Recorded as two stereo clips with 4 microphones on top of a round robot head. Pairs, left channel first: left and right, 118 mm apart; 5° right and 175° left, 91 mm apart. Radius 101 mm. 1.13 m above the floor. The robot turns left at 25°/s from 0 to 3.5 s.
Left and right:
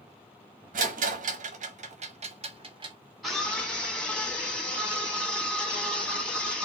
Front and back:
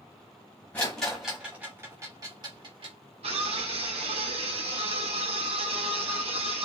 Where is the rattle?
85° right, 0.9 m; by 3.0 s 140° right, 0.9 m.